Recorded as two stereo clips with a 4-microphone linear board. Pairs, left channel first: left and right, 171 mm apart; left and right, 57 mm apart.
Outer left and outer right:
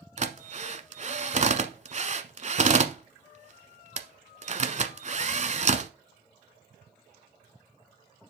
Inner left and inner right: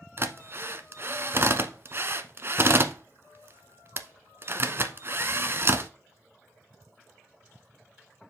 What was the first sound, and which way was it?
A drill, 45° right (ahead or behind).